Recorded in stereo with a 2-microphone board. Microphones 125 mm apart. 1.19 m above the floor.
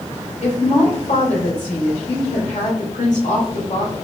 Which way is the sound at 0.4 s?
75° left (ahead or behind).